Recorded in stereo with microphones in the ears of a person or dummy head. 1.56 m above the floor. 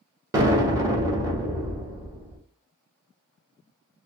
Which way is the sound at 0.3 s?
15° right (ahead or behind).